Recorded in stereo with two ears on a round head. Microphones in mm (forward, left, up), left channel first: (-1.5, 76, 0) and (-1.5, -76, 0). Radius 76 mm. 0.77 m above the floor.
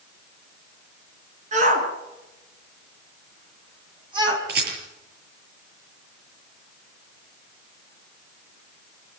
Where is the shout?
40° right (ahead or behind), 7.5 m; by 4.4 s 25° right (ahead or behind), 6 m.